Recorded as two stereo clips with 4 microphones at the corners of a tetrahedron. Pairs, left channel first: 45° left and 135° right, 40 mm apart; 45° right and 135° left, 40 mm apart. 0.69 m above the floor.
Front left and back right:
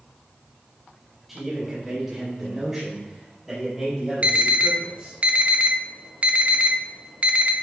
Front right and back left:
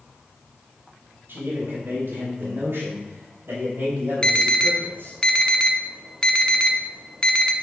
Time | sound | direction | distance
1.3 | a man speaking | 145° left | 3.5 m
4.2 | an alarm | 100° right | 0.7 m